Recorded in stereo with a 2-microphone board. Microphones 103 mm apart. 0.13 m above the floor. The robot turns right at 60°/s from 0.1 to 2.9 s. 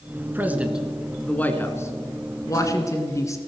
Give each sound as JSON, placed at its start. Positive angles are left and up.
{"t": 0.3, "sound": "a man speaking", "side_deg": -20, "distance_m": 1.5}